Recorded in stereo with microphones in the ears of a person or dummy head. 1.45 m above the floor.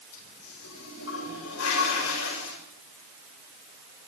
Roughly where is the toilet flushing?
Left.